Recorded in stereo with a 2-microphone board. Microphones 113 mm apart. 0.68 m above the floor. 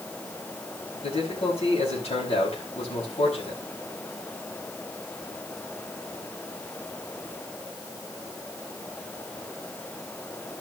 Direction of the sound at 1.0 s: 65° left (ahead or behind).